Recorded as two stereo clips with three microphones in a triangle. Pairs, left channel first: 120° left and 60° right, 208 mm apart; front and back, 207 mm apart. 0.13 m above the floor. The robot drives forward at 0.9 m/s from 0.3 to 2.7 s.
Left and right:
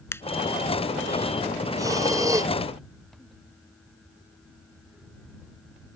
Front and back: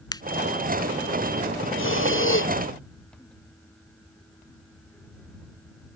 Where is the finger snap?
55° left.